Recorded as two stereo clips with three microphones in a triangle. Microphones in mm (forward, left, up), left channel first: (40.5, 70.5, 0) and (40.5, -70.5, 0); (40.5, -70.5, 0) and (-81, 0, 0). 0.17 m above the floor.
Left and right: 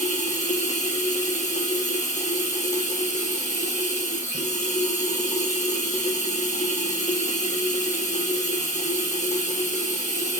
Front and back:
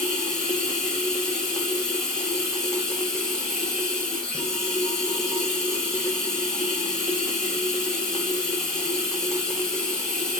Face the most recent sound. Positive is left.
turn(degrees=55)